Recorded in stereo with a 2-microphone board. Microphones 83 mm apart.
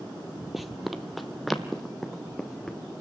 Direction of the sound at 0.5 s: 5° right (ahead or behind).